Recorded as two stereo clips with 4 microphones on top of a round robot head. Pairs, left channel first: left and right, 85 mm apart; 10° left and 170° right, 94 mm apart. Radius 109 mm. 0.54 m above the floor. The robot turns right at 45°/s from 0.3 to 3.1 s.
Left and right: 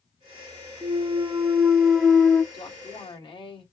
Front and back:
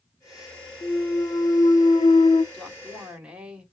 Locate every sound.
0.8 s a clunk: 55° right, 0.6 m; by 2.4 s 20° left, 0.6 m
2.5 s a woman speaking: 85° left, 2.5 m; by 3.6 s 110° left, 2.5 m